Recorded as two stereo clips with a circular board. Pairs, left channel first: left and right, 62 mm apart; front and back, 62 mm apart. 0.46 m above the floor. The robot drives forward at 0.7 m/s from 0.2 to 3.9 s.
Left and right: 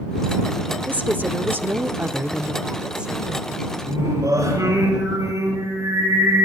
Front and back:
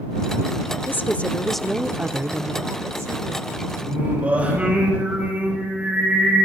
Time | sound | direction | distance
0.9 | a woman speaking | 35° right | 0.9 m
3.8 | singing | 110° right | 7 m